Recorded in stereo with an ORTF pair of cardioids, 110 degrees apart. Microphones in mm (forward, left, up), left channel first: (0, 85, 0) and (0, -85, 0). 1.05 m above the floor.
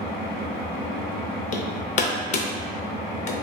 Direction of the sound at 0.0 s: 60° left.